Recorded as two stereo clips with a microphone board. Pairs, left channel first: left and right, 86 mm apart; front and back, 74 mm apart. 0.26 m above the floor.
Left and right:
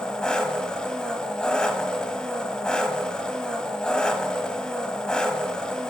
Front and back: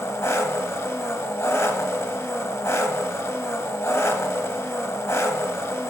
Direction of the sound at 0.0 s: 20° left.